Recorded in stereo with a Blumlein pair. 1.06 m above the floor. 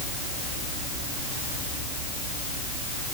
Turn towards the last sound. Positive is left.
No sound to turn to.